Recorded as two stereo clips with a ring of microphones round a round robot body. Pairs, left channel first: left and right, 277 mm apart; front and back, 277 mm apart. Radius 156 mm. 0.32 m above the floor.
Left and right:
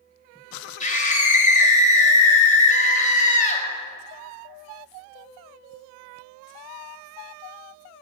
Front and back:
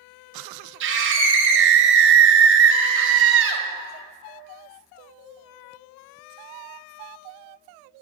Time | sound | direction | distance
0.8 | a scream | 150° left | 2 m